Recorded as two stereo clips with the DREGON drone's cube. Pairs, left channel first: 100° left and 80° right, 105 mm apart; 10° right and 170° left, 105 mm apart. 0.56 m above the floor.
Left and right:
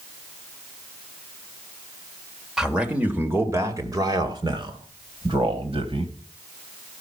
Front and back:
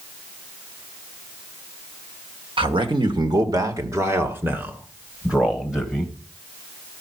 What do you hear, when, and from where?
2.6 s a man speaking: 165° right, 1.7 m; by 6.1 s 105° right, 3 m